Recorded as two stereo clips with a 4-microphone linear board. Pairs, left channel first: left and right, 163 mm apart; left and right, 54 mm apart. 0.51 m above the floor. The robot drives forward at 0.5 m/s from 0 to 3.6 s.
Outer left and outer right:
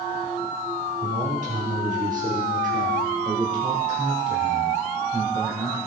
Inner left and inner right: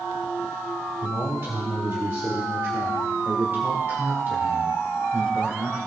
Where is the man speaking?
45° right (ahead or behind), 1.2 m; by 5.8 s 40° right (ahead or behind), 1.2 m.